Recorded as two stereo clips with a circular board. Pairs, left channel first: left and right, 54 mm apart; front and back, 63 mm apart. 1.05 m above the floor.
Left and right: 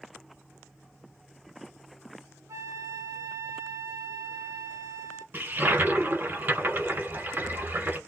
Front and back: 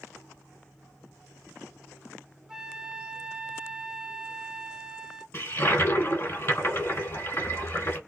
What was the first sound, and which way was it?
A flute, 100° right.